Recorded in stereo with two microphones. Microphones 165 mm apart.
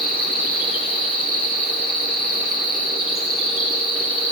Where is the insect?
35° left (ahead or behind), 5 m.